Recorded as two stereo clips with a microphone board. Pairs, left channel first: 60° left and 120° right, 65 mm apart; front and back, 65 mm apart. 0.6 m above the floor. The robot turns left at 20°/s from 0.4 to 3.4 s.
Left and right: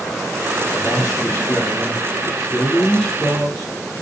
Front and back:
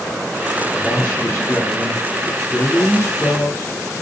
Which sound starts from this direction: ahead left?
A man speaking, at 0.7 s.